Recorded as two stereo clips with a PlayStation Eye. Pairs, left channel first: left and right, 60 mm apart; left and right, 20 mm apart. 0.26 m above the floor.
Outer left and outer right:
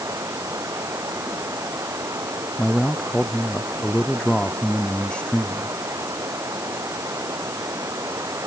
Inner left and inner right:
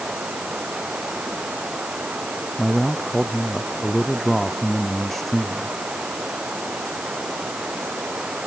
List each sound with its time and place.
0.0 s running water: 55° right (ahead or behind)
2.6 s a man speaking: 15° left (ahead or behind)